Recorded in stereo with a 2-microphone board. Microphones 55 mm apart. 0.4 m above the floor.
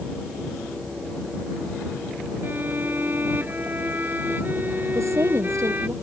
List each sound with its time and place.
2.4 s a violin: 35° right (ahead or behind)
4.9 s a woman speaking: 75° right (ahead or behind)